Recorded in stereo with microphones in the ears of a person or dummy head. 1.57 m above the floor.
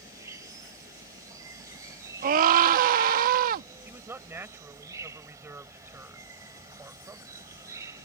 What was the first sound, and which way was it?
An insect, 20° right (ahead or behind).